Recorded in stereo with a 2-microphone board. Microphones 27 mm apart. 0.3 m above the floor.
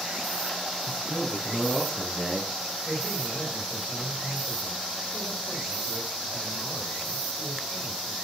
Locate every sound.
0.8 s a man speaking: 25° left (ahead or behind), 6 m; by 2.8 s 15° left (ahead or behind), 5.5 m
2.9 s a man speaking: 20° right (ahead or behind), 8 m